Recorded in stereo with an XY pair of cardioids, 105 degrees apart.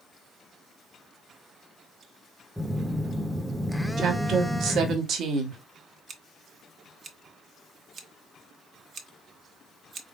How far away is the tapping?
No tapping in this recording.